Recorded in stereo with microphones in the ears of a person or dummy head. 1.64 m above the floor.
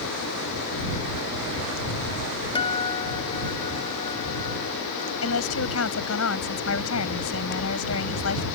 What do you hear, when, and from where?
2.5 s a guitar: 20° left (ahead or behind)
5.2 s a woman speaking: 85° left